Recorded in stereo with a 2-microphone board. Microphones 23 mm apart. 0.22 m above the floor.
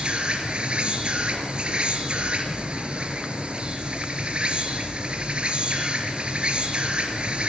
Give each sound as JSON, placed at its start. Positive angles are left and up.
{"t": 0.0, "sound": "an insect", "side_deg": -50, "distance_m": 4.0}